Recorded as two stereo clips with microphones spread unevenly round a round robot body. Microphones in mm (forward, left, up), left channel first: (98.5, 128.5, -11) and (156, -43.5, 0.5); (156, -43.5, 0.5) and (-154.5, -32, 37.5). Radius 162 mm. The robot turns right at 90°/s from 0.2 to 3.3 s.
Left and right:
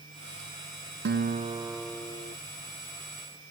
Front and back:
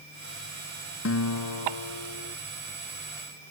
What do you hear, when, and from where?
1.1 s a guitar: 55° right; by 2.4 s 65° left